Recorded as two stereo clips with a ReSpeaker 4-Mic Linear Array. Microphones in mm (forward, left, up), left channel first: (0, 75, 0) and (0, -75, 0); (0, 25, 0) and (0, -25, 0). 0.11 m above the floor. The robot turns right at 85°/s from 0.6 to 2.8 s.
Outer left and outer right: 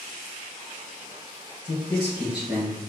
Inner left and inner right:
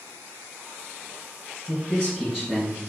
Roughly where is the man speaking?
Behind left.